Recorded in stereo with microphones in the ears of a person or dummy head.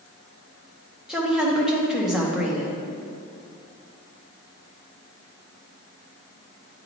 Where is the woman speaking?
5° left (ahead or behind), 1.0 m.